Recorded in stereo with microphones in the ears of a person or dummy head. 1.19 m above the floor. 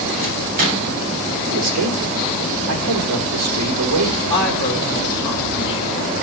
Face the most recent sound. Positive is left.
turn(degrees=25)  # may be behind; listen again after turning